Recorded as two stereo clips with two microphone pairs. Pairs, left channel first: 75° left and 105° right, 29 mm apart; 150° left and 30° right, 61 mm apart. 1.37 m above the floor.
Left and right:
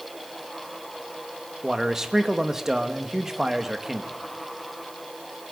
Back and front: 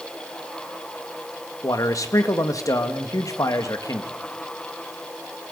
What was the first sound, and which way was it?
A man speaking, straight behind.